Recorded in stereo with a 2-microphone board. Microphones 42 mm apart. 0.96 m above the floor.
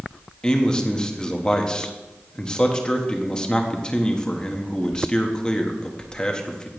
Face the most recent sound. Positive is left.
turn(degrees=20)  # may be behind; listen again after turning